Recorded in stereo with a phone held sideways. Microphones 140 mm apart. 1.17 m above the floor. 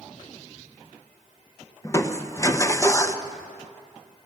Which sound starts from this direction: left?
Crushing, at 1.8 s.